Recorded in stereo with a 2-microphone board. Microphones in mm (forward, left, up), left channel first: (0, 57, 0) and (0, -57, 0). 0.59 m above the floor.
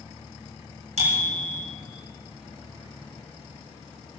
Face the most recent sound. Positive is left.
turn(degrees=-85)